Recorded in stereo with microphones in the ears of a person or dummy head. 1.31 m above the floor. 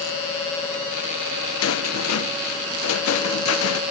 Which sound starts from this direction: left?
A rattle, at 1.6 s.